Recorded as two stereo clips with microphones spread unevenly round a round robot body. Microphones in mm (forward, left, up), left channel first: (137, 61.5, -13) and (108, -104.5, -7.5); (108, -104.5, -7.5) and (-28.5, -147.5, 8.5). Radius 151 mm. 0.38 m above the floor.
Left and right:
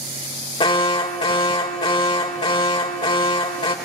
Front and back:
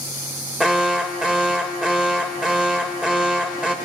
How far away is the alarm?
About 0.9 m.